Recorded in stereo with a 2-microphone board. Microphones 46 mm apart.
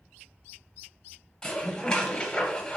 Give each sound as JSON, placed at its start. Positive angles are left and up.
{"t": 1.4, "sound": "dishes clattering", "side_deg": 15, "distance_m": 0.7}